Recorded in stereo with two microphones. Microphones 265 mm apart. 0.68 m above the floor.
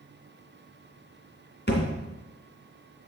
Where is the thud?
40° left (ahead or behind), 2.5 m.